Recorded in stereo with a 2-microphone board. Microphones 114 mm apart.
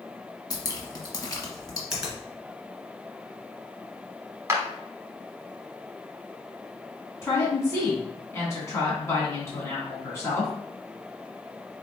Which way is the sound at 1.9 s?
5° right (ahead or behind).